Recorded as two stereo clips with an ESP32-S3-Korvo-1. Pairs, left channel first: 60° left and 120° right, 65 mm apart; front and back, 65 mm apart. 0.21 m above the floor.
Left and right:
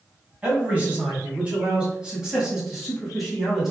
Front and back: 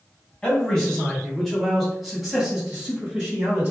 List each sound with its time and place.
0.4 s a man speaking: 70° right, 1.8 m; by 3.7 s 140° left, 1.5 m